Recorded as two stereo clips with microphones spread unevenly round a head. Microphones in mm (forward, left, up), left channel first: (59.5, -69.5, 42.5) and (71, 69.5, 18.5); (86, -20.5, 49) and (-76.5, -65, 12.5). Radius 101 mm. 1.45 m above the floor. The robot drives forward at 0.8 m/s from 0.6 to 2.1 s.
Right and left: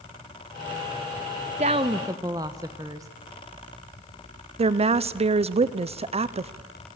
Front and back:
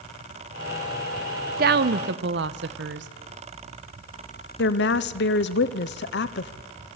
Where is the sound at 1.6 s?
145° left, 0.5 m; by 3.1 s 160° left, 0.9 m.